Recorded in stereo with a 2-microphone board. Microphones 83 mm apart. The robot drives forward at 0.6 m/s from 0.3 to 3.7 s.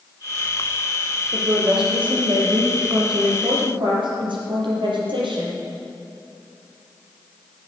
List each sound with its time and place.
1.3 s a woman speaking: 70° right (ahead or behind), 6 m; by 5.6 s 75° right (ahead or behind), 6 m